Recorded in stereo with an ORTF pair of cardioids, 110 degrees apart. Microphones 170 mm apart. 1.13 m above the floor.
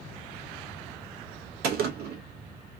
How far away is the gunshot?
About 0.8 m.